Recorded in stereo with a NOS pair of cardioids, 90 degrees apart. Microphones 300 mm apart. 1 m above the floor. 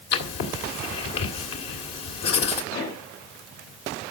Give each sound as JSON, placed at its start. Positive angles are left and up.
{"t": 0.1, "sound": "writing", "azimuth_deg": 60, "distance_m": 2.5}
{"t": 2.7, "sound": "a pop", "azimuth_deg": 65, "distance_m": 2.5}